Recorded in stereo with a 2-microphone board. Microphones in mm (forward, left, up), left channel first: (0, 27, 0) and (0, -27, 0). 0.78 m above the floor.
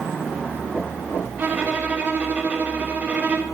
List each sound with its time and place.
1.4 s a violin: 25° right (ahead or behind), 1.6 m